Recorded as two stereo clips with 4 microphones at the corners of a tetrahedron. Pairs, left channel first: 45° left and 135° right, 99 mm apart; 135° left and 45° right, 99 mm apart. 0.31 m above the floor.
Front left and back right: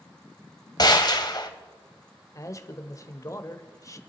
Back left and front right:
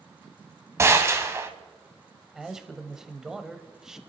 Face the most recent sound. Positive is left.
turn(degrees=35)